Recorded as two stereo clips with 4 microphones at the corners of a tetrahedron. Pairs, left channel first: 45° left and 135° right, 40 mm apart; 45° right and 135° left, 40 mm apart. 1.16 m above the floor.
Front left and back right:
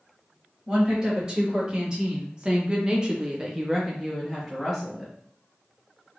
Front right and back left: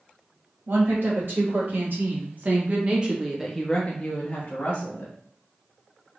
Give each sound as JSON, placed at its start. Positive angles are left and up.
{"t": 0.7, "sound": "a woman speaking", "azimuth_deg": 155, "distance_m": 1.8}